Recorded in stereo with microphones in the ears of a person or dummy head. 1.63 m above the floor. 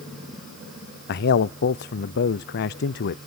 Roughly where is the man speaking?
Left.